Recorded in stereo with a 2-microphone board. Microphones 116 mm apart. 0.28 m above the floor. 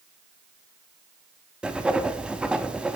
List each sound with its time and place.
1.6 s writing: 10° right (ahead or behind), 0.5 m